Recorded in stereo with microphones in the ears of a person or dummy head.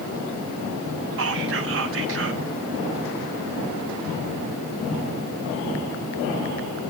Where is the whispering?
60° right (ahead or behind), 0.8 m.